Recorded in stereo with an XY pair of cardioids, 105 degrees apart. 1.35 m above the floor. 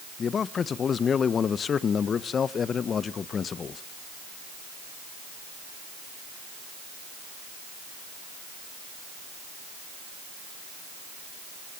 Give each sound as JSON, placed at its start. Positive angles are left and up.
{"t": 0.2, "sound": "a man speaking", "azimuth_deg": 45, "distance_m": 1.1}